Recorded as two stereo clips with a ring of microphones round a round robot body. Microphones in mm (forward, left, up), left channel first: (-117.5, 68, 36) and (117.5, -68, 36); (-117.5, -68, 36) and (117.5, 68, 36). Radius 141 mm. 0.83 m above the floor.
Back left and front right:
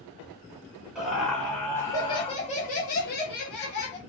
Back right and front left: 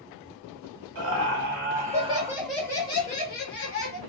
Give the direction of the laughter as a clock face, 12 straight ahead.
10 o'clock.